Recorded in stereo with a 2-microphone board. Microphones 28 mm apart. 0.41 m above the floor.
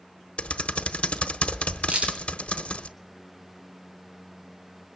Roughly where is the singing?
I don't hear singing.